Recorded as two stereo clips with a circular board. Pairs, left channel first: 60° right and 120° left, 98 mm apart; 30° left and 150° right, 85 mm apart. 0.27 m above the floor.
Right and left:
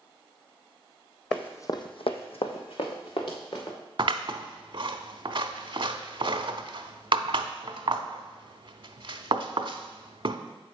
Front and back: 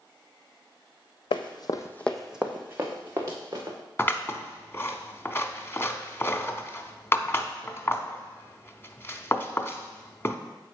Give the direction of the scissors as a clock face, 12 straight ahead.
9 o'clock.